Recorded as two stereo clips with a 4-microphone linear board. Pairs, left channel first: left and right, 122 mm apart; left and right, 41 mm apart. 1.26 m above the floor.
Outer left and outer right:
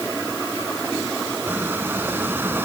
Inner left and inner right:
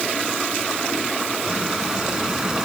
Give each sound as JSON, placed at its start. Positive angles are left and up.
{"t": 1.5, "sound": "a squeak", "side_deg": -15}